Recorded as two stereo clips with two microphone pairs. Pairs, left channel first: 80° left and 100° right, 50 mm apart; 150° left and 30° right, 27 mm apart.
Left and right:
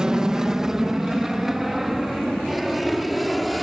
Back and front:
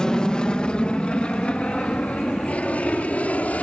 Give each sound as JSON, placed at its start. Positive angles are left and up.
{"t": 0.0, "sound": "an aircraft", "azimuth_deg": -170}